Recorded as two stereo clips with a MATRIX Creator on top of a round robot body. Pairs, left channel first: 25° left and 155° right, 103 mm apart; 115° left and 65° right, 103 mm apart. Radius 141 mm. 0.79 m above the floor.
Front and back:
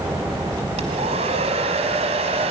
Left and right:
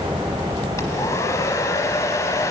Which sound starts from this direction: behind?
A hair dryer, at 0.8 s.